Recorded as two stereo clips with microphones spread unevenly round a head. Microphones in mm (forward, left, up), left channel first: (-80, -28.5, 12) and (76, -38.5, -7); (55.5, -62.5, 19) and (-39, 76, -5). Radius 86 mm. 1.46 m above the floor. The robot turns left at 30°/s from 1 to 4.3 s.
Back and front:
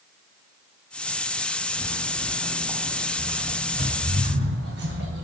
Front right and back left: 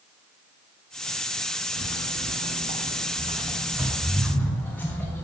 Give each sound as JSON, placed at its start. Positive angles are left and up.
{"t": 1.8, "sound": "footsteps", "azimuth_deg": 125, "distance_m": 2.0}